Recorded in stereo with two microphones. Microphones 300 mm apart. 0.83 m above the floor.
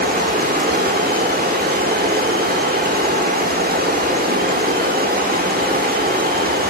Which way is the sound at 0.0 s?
30° right (ahead or behind).